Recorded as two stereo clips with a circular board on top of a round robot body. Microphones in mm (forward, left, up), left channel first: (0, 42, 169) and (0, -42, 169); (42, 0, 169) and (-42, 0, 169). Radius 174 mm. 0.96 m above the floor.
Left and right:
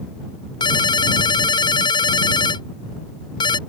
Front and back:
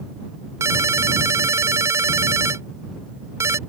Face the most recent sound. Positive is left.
turn(degrees=120)